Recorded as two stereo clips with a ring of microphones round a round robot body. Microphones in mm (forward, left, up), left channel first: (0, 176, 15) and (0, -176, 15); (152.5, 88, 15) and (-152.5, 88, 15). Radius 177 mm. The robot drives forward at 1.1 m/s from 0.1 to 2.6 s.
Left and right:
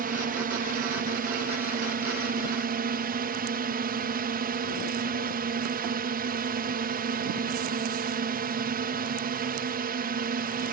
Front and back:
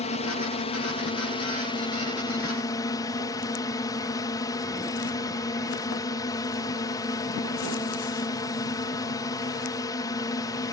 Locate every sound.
0.0 s a drone: 50° right; by 10.7 s 65° right